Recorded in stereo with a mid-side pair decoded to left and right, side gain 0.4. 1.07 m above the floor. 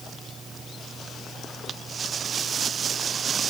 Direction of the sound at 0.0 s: 35° right.